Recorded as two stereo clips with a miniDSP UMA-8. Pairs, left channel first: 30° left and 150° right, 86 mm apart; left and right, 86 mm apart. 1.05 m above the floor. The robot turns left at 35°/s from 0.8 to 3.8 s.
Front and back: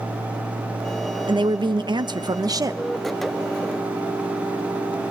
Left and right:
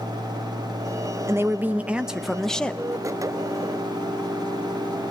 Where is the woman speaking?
145° right, 0.9 m; by 2.8 s 165° left, 0.9 m.